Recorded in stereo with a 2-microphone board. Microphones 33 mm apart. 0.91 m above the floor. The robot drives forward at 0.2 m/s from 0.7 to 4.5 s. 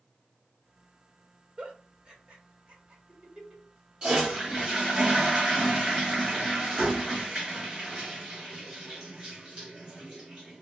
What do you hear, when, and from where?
1.6 s a giggle: 35° right (ahead or behind), 1.2 m; by 3.6 s 25° right (ahead or behind), 1.5 m
4.0 s a toilet flushing: 30° right (ahead or behind), 2.0 m